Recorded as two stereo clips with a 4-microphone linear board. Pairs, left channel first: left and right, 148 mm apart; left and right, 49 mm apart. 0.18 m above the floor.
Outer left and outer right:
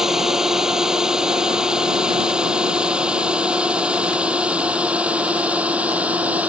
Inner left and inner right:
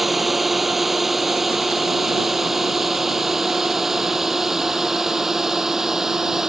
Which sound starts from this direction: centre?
A drone, at 0.0 s.